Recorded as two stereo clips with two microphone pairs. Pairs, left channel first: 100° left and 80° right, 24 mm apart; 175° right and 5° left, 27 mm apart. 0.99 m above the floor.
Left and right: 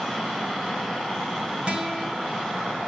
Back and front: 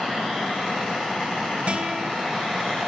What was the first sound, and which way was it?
A guitar, 35° right.